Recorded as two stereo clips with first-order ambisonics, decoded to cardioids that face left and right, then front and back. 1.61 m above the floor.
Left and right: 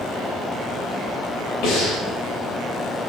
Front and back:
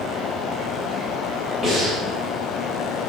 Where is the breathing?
80° left, 3 m.